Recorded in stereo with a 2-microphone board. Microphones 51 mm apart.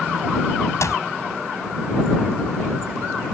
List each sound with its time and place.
0.8 s a clap: 75° left (ahead or behind)